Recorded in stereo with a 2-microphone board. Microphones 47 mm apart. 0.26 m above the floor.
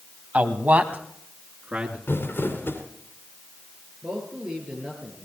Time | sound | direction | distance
0.3 | a man speaking | 35° right (ahead or behind) | 1.4 m
2.1 | crumpling | 55° left (ahead or behind) | 2.5 m
4.0 | a man speaking | 15° right (ahead or behind) | 6 m